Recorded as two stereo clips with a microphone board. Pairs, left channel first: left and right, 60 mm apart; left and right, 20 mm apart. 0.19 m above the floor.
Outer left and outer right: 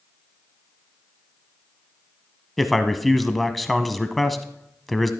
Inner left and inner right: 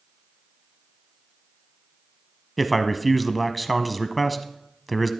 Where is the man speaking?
Centre (ahead or behind), 1.0 m.